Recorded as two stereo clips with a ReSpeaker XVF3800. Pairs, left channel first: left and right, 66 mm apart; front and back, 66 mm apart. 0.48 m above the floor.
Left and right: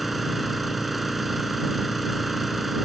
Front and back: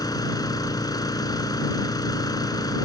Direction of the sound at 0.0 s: Straight ahead.